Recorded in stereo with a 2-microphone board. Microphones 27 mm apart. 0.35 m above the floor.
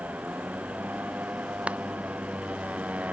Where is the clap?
45° right (ahead or behind).